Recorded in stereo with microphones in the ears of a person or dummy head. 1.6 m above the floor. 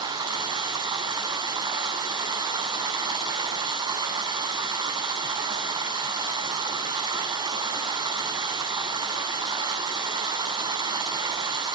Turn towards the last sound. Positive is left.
turn(degrees=-25)  # may be behind; listen again after turning